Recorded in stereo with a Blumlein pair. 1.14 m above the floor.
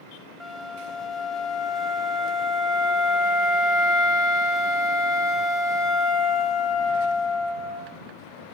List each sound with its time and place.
0.4 s a flute: 5° left, 1.0 m